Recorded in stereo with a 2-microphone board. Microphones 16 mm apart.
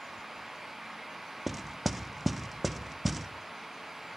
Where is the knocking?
Centre (ahead or behind), 0.7 m.